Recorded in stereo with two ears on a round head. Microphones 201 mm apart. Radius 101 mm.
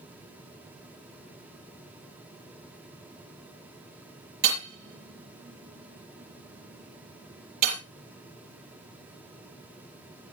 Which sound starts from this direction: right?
Hammering, at 4.4 s.